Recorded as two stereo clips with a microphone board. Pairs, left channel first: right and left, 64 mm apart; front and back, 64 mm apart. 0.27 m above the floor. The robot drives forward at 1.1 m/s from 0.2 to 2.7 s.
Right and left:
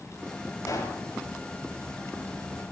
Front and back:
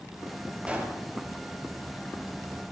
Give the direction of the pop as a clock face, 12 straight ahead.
4 o'clock.